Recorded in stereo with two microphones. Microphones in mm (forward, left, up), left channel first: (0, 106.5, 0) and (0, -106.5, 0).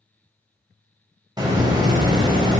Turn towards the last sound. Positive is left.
turn(degrees=-20)  # may be behind; listen again after turning